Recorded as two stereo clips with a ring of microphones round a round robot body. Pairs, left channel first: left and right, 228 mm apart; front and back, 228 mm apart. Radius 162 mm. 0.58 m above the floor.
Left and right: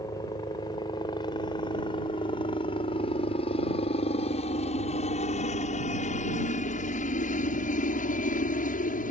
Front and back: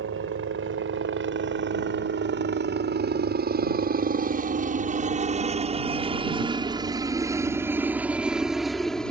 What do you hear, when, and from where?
0.0 s a helicopter: 165° left; by 9.1 s 85° left